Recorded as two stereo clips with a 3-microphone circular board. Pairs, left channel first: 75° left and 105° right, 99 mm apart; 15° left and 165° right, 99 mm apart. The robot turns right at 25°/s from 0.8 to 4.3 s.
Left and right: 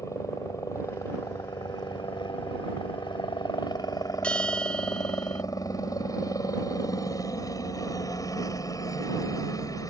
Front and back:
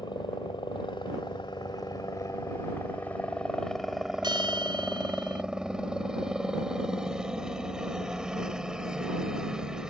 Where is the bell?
155° left.